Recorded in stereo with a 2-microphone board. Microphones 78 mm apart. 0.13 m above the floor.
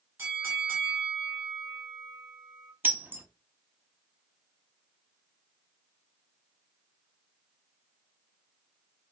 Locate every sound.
0.2 s a bell: 25° right (ahead or behind), 1.9 m
2.8 s breaking glass: 25° right (ahead or behind), 0.7 m